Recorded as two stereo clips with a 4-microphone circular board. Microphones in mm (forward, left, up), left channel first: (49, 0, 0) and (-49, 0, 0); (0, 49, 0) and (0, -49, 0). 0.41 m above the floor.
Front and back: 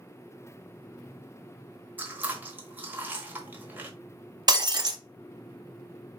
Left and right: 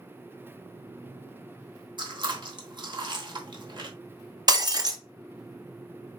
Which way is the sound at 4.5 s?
135° right.